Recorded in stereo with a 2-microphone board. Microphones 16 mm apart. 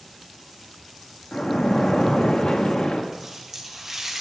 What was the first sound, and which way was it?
A splash, 70° left (ahead or behind).